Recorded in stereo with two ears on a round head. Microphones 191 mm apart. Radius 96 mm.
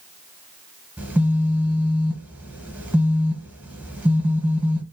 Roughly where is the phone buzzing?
Centre.